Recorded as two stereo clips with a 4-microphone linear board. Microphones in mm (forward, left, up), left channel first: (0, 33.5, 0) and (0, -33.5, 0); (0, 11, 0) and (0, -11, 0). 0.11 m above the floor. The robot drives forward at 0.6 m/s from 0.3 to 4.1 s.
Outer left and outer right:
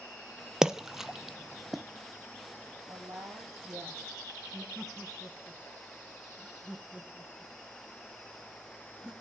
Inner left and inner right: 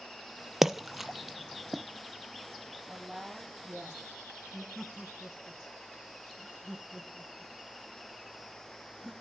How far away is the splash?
About 0.6 m.